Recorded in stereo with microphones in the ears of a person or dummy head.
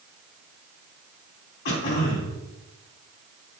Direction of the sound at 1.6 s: 65° left (ahead or behind).